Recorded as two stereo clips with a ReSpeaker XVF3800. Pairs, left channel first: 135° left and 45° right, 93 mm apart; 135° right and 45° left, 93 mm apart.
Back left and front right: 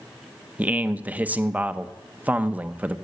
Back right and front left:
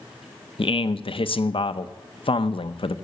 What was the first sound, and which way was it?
A man speaking, 120° right.